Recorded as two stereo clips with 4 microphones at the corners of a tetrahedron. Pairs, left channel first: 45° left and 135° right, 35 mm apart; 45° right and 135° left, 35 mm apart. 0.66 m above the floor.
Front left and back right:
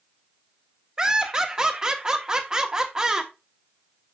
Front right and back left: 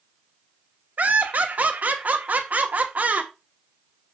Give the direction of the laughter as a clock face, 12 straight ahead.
7 o'clock.